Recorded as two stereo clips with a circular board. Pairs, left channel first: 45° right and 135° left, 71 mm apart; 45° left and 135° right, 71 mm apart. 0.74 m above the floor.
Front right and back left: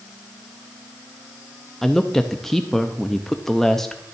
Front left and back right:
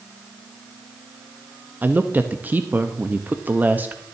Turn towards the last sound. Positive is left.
turn(degrees=-125)